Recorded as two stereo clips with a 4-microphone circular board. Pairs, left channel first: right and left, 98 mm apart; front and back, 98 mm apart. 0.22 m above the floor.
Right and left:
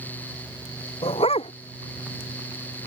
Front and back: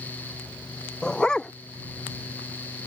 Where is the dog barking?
80° right.